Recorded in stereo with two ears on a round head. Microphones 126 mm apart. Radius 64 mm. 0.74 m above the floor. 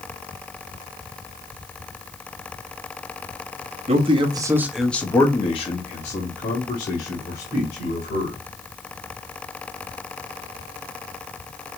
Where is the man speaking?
45° right (ahead or behind), 0.9 m; by 8.4 s 75° left (ahead or behind), 2.5 m.